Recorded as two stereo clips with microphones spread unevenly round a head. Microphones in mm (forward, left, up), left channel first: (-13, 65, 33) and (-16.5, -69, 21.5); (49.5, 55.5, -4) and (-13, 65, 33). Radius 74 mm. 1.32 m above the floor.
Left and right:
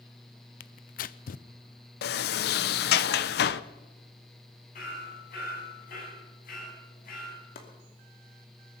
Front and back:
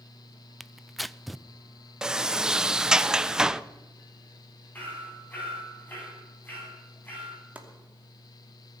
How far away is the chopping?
About 2.5 m.